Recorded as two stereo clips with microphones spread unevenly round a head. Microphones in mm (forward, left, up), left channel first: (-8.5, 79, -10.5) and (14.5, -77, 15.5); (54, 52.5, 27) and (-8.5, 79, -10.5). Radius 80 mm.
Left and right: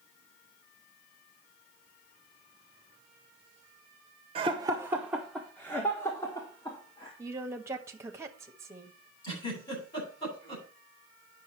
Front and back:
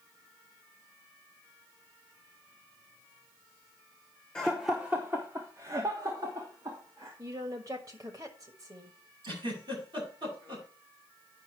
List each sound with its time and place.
4.3 s laughter: 135° right, 0.8 m; by 7.1 s 160° left, 2 m
7.2 s a woman speaking: 155° right, 1.4 m
9.2 s a giggle: 165° left, 8.5 m